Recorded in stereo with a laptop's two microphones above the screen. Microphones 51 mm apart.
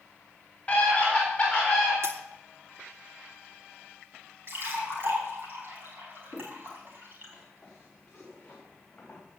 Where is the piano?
No piano in this recording.